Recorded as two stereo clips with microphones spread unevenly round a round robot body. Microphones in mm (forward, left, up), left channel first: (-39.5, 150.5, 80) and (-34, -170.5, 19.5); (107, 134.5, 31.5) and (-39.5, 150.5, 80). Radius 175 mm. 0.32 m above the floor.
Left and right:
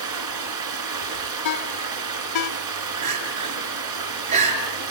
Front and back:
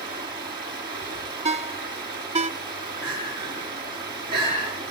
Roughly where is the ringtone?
Behind left.